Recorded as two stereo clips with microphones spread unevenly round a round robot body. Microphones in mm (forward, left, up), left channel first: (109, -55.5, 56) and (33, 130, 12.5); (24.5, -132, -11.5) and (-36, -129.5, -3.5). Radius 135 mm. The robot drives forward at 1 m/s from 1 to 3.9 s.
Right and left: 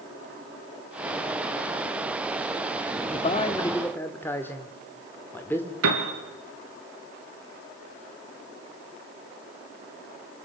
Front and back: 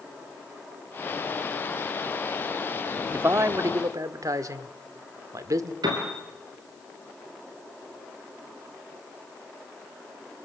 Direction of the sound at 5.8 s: 145° left.